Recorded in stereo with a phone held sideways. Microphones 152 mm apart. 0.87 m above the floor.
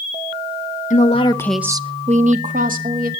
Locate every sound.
0.9 s a woman speaking: 55° left (ahead or behind), 1.2 m; by 3.1 s 75° right (ahead or behind), 2.5 m